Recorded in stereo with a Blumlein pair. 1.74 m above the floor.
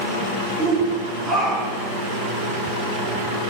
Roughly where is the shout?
Ahead.